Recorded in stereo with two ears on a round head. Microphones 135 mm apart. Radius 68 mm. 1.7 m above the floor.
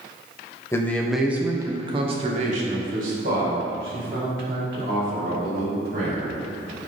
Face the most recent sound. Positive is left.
turn(degrees=-80)